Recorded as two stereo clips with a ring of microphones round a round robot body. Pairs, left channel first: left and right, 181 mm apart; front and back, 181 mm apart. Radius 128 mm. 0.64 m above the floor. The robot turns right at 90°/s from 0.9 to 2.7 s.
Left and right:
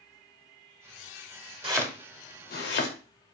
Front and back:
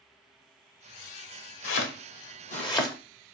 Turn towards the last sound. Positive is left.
turn(degrees=70)